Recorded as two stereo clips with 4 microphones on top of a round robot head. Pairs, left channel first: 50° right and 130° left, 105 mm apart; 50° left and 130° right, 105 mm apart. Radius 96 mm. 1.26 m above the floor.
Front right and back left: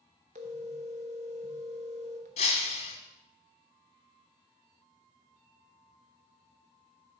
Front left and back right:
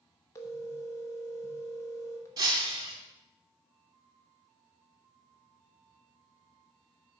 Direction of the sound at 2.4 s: 70° right.